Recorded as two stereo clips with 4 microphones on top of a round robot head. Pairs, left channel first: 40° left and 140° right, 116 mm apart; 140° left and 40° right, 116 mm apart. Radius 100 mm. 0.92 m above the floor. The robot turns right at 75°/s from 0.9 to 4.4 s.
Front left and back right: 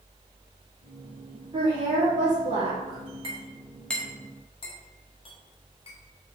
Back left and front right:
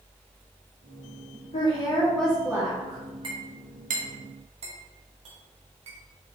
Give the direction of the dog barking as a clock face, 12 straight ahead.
No dog barking in this recording.